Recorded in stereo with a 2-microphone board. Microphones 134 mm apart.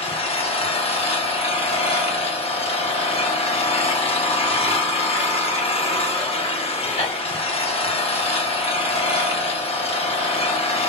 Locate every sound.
0.0 s an engine running: 45° left (ahead or behind), 0.8 m